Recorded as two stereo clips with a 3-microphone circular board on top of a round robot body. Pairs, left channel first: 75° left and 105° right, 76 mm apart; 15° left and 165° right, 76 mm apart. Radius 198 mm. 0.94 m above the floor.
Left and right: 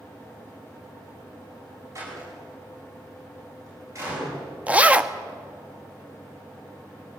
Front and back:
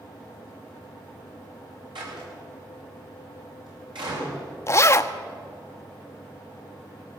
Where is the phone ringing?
I don't hear a phone ringing.